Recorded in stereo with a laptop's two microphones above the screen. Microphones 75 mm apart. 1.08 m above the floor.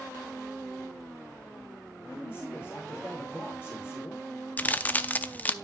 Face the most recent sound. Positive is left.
turn(degrees=20)  # may be behind; listen again after turning